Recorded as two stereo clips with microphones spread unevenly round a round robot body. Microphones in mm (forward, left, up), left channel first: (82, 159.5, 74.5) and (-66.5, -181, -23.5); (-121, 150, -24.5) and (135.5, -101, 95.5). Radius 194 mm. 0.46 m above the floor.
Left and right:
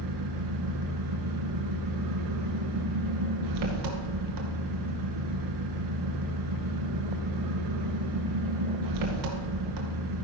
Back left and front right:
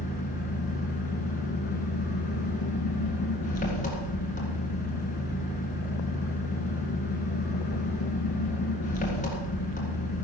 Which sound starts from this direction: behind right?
An engine running, at 0.0 s.